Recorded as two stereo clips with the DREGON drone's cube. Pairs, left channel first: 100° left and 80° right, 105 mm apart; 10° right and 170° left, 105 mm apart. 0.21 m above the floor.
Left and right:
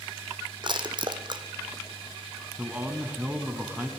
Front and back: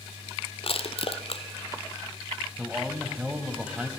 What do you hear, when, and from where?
0.6 s crushing: 35° right, 1.4 m
2.6 s a man speaking: 130° right, 1.6 m